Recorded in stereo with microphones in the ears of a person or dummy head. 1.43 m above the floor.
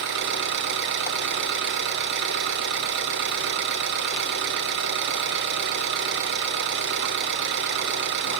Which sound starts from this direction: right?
An engine running, at 0.0 s.